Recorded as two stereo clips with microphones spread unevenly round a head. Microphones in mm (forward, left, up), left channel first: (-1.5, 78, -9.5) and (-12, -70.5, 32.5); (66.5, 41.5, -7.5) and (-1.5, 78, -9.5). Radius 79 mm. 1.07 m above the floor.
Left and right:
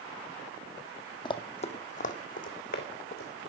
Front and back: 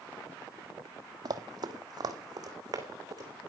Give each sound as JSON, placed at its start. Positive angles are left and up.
{"t": 1.2, "sound": "running footsteps", "azimuth_deg": 155, "distance_m": 1.6}